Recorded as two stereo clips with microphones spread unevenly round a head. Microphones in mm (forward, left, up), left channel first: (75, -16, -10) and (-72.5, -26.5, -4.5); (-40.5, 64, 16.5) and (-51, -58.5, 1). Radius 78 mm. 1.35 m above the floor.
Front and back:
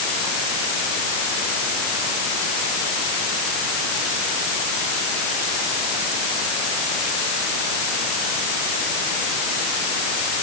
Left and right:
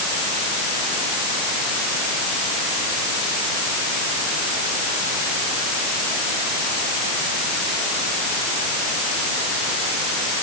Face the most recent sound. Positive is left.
No sound to turn to.